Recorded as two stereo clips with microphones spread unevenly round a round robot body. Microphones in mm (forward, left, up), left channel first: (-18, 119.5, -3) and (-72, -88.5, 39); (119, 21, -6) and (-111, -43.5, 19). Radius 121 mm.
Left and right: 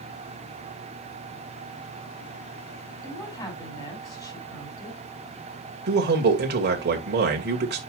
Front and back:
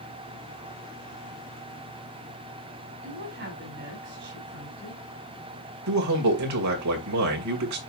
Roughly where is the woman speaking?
Behind left.